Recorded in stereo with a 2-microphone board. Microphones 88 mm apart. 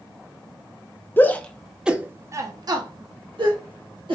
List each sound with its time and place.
1.2 s a shout: 25° left (ahead or behind), 0.6 m; by 4.2 s 70° right (ahead or behind), 1.2 m